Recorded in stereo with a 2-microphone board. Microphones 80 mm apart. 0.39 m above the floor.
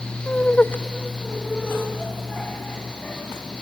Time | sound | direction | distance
0.3 | laughter | 20° left (ahead or behind) | 0.8 m